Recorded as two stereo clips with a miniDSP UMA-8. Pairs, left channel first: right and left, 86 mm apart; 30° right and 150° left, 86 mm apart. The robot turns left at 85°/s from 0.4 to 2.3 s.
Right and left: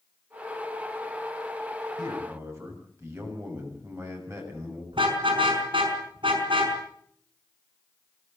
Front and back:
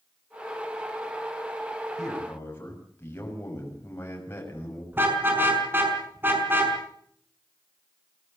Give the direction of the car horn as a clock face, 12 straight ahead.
9 o'clock.